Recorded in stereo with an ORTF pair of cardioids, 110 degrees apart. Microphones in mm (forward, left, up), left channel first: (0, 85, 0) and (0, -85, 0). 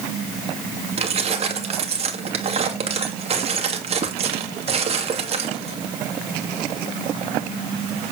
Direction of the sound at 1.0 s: 40° right.